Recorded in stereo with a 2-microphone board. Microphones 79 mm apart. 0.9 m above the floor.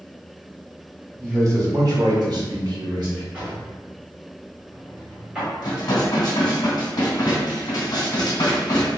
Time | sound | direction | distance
1.2 | a man speaking | 30° right (ahead or behind) | 1.0 m
3.3 | a drawer | 15° right (ahead or behind) | 1.9 m
5.6 | dishes clattering | 60° left (ahead or behind) | 1.6 m